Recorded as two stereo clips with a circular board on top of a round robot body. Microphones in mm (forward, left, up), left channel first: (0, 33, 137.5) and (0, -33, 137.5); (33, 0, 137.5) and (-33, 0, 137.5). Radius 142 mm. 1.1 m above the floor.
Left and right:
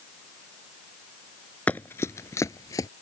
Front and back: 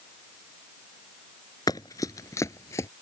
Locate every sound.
1.7 s running footsteps: 20° left; by 2.9 s 45° left